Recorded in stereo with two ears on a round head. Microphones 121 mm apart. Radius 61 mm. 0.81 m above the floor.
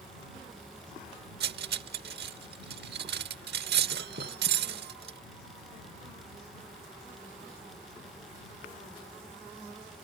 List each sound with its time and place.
1.4 s cutlery clinking: 90° right